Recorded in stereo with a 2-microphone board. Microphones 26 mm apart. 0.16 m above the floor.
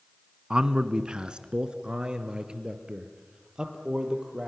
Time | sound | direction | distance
0.5 | a man speaking | 30° right (ahead or behind) | 1.2 m